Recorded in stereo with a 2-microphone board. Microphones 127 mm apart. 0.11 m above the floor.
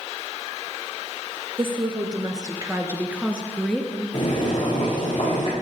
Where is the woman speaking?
45° right (ahead or behind), 2.0 m; by 4.0 s 10° left (ahead or behind), 1.9 m.